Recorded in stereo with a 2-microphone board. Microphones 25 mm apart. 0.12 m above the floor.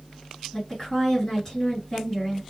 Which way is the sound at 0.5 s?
25° left (ahead or behind).